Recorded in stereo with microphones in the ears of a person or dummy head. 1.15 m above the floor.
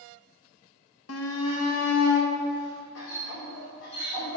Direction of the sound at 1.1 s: 85° left.